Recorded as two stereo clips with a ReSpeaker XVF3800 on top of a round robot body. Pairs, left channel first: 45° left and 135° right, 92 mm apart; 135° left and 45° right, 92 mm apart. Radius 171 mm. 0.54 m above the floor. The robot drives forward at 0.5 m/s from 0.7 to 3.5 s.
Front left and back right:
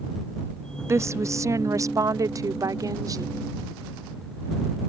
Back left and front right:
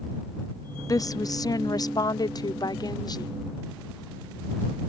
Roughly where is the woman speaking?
Behind.